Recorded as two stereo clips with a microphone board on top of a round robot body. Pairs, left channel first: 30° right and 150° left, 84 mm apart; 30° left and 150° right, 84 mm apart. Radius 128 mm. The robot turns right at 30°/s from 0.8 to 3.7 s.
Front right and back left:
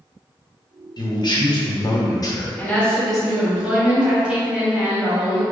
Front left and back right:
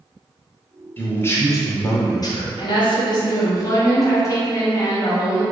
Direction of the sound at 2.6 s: 40° left.